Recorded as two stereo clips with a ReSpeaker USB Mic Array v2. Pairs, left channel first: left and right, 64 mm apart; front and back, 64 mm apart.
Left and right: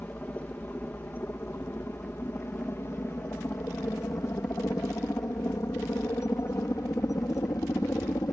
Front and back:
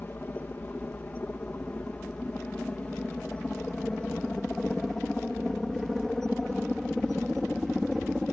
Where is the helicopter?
40° left; by 8.3 s 85° left.